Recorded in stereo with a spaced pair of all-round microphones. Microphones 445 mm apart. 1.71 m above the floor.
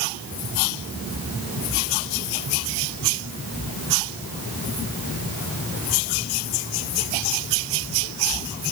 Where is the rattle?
No rattle in this recording.